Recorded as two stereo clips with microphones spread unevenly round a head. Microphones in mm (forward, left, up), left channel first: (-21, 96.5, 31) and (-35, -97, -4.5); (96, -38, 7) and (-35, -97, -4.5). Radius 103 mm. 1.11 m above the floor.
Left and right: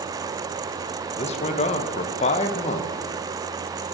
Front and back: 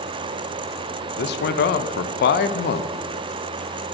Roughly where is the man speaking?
Ahead left.